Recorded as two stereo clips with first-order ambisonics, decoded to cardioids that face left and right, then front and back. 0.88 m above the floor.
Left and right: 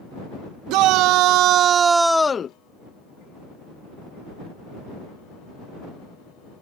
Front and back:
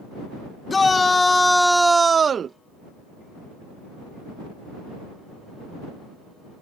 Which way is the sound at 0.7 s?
75° right.